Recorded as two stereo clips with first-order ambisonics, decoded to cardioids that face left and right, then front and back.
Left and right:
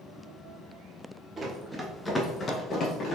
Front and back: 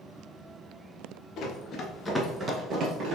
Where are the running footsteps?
25° right, 1.2 m; by 3.2 s 145° left, 1.5 m.